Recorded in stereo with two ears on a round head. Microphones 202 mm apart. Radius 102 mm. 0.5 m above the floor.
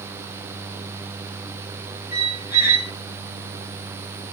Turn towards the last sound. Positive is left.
turn(degrees=-15)  # may be behind; listen again after turning